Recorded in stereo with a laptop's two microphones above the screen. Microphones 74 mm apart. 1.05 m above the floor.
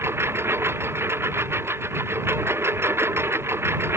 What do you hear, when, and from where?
0.0 s a lawn mower: 35° right (ahead or behind)